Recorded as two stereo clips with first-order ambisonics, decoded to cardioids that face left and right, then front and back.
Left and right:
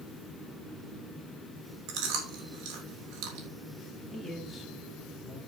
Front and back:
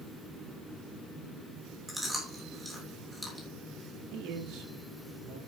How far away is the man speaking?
About 3 m.